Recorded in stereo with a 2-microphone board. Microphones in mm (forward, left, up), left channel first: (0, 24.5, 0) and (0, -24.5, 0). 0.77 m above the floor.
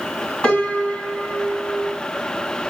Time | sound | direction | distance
0.4 | a piano | 30° left (ahead or behind) | 1.6 m